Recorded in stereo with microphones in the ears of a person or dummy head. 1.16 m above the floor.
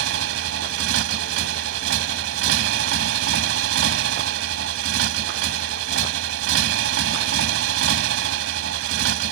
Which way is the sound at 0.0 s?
75° right (ahead or behind).